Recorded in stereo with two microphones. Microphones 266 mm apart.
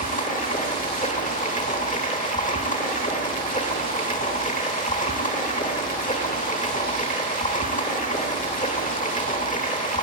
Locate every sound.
0.0 s running water: 30° left (ahead or behind), 1.0 m